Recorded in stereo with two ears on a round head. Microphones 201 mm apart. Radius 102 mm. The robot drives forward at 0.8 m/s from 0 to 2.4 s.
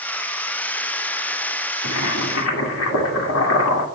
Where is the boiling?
80° left, 2 m; by 3.9 s 70° left (ahead or behind), 2 m.